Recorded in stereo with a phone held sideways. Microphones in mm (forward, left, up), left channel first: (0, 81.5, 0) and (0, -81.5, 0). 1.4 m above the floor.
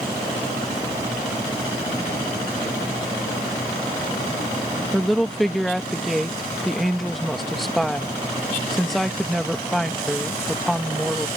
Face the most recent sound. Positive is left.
turn(degrees=0)  # may be behind; listen again after turning